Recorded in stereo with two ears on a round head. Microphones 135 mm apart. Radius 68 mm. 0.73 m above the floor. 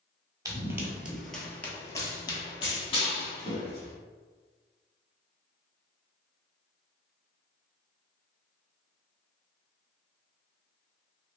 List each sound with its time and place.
0.5 s running footsteps: 20° right (ahead or behind), 0.8 m; by 3.9 s 40° left (ahead or behind), 1.5 m